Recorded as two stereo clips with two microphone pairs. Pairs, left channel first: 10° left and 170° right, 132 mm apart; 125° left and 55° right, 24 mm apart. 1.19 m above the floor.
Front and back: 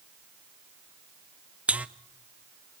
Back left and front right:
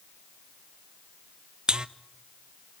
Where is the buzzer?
95° right, 0.6 m.